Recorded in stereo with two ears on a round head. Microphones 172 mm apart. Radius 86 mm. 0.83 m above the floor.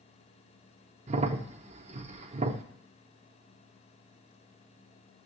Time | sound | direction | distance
1.1 | a crack | 35° right (ahead or behind) | 0.6 m